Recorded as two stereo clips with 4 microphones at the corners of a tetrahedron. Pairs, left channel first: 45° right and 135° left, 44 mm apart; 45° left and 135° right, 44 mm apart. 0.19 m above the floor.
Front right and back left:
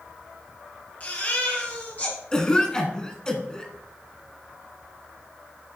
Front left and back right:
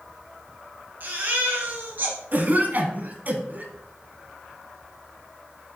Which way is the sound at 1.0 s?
95° right.